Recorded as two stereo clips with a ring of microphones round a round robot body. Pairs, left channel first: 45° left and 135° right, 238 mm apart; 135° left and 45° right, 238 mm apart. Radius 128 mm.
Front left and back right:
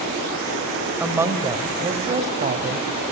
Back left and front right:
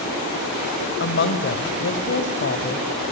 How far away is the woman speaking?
About 1.7 m.